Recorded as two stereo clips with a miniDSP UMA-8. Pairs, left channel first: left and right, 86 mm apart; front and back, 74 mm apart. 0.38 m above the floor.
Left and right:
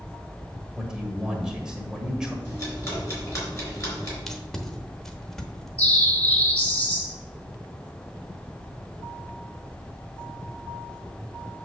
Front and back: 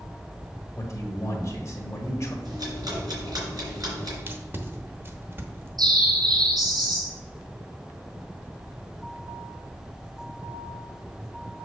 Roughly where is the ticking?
Behind left.